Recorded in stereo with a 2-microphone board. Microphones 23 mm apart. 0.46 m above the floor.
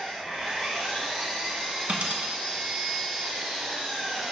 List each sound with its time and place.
0.0 s an engine running: 65° right (ahead or behind), 2 m
1.9 s a dropped coin: 75° right (ahead or behind), 0.8 m